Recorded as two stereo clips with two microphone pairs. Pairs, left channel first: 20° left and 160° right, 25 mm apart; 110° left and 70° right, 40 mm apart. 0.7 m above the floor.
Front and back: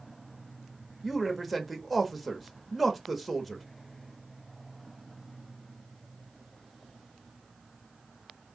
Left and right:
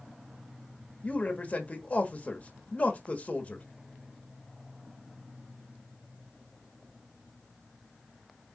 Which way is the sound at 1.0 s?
120° left.